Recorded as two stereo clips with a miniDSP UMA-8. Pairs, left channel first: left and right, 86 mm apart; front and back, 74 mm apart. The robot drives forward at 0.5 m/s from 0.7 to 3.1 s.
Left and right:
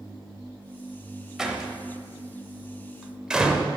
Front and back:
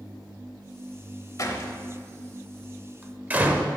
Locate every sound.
1.4 s a door slam: 10° right, 0.9 m; by 3.7 s 160° right, 0.7 m